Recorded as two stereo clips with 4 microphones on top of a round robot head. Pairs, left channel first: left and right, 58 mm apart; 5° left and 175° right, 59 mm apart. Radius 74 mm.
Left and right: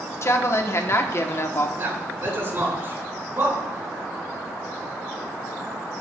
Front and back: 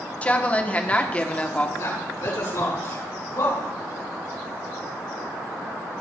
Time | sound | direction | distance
0.2 | a woman speaking | 65° left | 1.4 m
1.8 | a man speaking | 40° right | 7 m